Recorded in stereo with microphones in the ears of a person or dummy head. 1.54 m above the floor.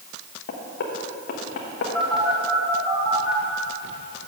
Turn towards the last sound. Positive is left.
turn(degrees=0)  # may be behind; listen again after turning